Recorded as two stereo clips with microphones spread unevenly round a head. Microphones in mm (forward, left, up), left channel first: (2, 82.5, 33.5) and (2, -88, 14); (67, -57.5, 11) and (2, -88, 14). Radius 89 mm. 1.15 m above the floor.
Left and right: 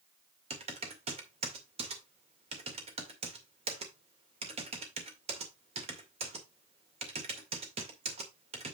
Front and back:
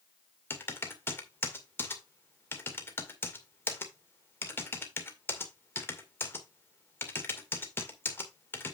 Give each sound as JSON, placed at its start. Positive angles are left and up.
{"t": 0.5, "sound": "typing on a keyboard", "azimuth_deg": -30, "distance_m": 2.0}